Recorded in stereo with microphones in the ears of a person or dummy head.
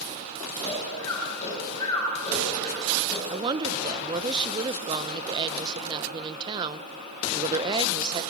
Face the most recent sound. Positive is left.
turn(degrees=-25)  # may be behind; listen again after turning